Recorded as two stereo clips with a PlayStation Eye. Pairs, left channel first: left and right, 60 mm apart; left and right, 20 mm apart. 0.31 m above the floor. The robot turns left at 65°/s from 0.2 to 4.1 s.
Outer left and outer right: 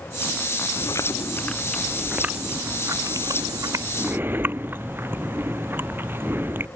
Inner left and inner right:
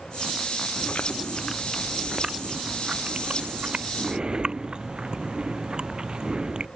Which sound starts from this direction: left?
Chewing, at 0.8 s.